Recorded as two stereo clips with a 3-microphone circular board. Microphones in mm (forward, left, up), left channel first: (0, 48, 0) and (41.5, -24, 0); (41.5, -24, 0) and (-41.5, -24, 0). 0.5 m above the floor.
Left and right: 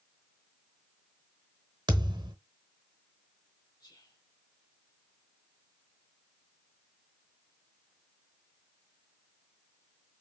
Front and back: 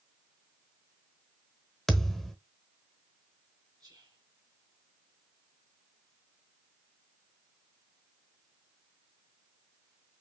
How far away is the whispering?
About 1.8 m.